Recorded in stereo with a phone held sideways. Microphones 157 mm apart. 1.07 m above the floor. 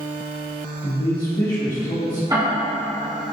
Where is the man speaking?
55° left (ahead or behind), 1.6 m.